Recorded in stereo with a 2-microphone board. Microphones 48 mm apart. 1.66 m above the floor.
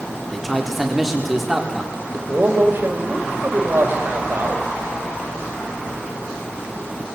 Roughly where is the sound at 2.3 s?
Right.